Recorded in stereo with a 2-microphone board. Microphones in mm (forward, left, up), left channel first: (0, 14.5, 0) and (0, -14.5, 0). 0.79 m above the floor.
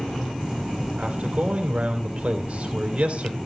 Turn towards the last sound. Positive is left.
turn(degrees=-60)  # may be behind; listen again after turning